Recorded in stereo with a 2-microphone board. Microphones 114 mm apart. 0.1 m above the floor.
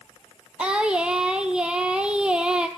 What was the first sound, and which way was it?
Singing, 5° right (ahead or behind).